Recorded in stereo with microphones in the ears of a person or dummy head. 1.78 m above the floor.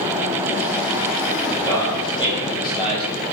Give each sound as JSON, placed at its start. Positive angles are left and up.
{"t": 1.5, "sound": "a man speaking", "side_deg": 20, "distance_m": 9.0}